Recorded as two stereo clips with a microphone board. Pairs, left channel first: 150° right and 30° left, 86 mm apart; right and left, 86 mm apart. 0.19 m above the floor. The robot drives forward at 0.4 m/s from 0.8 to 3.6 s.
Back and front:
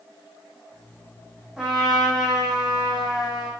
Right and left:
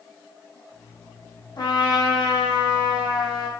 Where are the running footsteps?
I don't hear running footsteps.